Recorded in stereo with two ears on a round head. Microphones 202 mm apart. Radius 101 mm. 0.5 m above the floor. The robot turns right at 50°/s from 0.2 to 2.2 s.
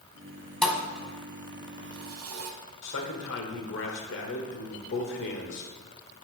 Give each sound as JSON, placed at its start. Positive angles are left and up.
{"t": 0.6, "sound": "a thud", "side_deg": 5, "distance_m": 1.0}
{"t": 2.8, "sound": "a man speaking", "side_deg": 60, "distance_m": 1.4}